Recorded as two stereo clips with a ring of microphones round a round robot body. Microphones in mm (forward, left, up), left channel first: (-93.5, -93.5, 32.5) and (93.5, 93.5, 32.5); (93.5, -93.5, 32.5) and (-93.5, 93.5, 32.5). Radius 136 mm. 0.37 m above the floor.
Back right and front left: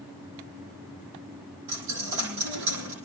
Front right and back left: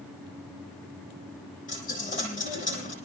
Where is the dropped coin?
20° left, 8 m.